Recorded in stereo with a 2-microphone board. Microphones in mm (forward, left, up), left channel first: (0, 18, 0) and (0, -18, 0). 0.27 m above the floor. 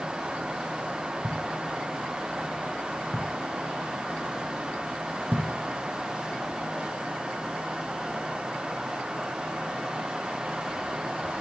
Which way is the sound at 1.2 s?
60° right (ahead or behind).